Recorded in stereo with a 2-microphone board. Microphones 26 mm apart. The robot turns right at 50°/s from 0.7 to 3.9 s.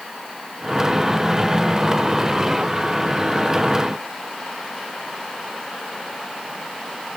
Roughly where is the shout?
I don't hear a shout.